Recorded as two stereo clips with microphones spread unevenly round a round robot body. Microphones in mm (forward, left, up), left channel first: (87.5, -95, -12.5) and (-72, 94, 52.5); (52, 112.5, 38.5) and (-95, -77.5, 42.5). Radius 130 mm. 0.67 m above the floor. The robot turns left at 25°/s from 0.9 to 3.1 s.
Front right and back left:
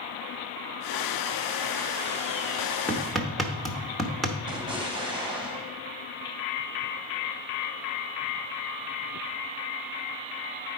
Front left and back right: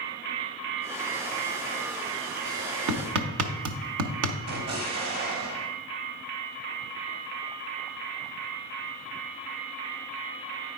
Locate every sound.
2.9 s hammering: 130° right, 0.9 m; by 4.4 s 140° right, 0.9 m
4.5 s an explosion: 155° right, 2.0 m